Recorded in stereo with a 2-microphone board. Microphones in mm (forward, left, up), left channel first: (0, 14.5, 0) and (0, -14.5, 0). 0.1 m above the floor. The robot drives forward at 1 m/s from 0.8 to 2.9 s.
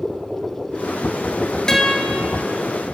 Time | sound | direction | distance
1.7 | a guitar | 20° left (ahead or behind) | 1.5 m